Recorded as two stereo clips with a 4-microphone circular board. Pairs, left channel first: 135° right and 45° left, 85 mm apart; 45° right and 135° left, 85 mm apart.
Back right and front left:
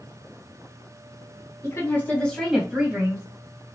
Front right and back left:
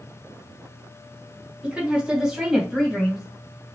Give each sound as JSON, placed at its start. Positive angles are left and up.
{"t": 1.6, "sound": "a woman speaking", "azimuth_deg": -160, "distance_m": 1.9}